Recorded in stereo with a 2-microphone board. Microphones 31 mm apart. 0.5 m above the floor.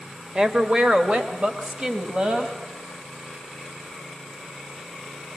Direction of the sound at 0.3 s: 25° right (ahead or behind).